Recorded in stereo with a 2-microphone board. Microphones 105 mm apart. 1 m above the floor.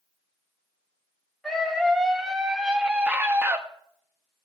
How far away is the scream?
About 2.5 m.